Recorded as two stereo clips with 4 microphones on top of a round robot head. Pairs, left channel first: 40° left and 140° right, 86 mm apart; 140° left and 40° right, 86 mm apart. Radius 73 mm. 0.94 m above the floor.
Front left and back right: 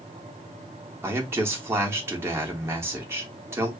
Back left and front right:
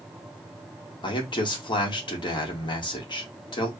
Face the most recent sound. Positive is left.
turn(degrees=160)